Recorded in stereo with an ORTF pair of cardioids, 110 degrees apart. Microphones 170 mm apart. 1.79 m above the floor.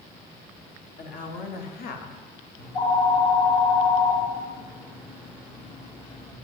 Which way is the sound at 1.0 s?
55° left.